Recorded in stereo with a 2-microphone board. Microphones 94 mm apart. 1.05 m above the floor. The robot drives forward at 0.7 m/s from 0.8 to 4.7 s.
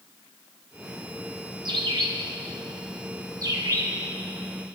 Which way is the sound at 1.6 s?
60° right (ahead or behind).